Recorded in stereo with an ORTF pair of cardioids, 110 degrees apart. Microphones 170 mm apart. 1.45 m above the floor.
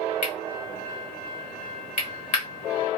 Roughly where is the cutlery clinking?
Ahead left.